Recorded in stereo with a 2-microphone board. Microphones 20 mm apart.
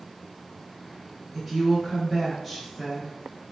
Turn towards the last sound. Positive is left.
turn(degrees=-5)  # may be behind; listen again after turning